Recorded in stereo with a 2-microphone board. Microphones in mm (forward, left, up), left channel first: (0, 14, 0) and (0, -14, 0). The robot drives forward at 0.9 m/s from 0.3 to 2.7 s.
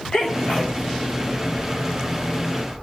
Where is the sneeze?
40° left (ahead or behind), 1.9 m; by 0.8 s 35° left (ahead or behind), 2 m.